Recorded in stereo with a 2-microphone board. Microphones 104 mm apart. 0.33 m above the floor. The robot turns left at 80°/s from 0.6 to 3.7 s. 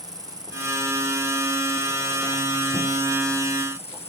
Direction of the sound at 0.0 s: 35° right.